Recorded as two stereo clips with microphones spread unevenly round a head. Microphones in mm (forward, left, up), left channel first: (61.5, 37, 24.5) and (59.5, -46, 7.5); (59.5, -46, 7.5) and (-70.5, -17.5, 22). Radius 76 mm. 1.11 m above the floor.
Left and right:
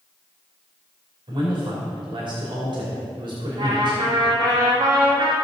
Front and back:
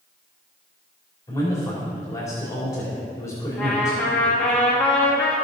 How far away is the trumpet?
About 2.5 m.